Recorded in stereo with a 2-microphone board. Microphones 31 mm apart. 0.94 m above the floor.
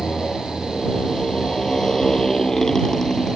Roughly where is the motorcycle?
Left.